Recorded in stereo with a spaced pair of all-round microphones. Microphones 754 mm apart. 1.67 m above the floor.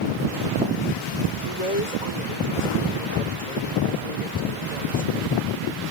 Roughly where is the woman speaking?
Left.